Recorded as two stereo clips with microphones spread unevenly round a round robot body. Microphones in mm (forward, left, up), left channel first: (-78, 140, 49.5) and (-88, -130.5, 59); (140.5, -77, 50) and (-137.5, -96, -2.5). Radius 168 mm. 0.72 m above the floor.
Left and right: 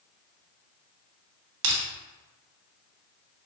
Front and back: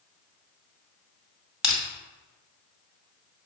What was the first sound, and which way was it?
Crushing, 85° right.